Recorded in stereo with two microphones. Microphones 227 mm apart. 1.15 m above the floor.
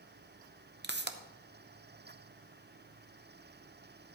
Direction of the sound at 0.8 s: 50° right (ahead or behind).